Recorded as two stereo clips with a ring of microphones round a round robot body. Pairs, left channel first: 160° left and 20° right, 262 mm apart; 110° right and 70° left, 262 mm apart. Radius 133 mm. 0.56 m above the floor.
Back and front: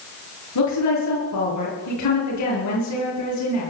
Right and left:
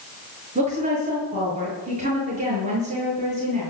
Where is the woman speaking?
135° left, 8.5 m.